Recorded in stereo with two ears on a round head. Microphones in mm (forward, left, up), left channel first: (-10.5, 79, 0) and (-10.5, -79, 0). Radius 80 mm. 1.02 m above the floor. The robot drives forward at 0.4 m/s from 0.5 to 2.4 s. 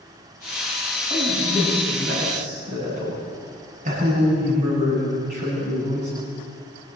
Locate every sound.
1.1 s a man speaking: 50° right (ahead or behind), 8 m; by 6.1 s 45° right (ahead or behind), 8.5 m